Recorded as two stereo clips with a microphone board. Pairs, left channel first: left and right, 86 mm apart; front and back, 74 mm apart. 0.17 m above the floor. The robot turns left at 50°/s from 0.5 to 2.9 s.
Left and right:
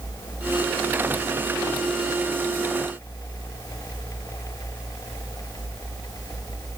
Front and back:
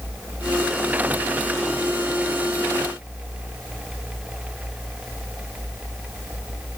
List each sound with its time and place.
Only background noise.